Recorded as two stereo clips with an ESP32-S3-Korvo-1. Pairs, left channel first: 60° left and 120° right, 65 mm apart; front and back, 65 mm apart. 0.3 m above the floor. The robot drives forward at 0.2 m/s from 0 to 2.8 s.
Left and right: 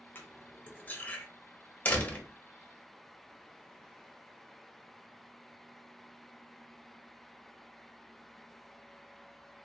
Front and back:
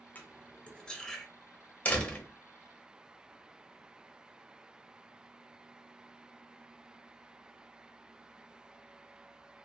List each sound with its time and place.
0.1 s cutlery clinking: 35° left, 0.5 m; by 1.3 s 80° left, 0.5 m
1.9 s a door slam: 35° left, 0.6 m; by 2.2 s 50° left, 0.5 m